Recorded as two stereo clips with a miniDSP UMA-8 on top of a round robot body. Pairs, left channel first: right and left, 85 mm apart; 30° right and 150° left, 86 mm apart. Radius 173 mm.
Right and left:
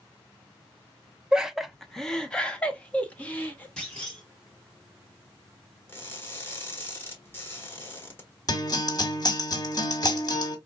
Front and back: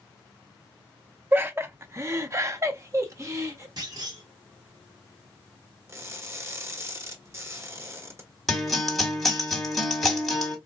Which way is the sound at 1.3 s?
155° left.